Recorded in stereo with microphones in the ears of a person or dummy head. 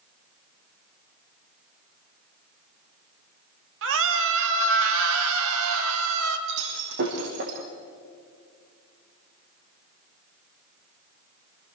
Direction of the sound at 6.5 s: 60° right (ahead or behind).